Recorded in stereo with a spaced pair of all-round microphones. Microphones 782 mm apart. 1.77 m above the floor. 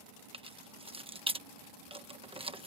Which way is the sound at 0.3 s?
5° right (ahead or behind).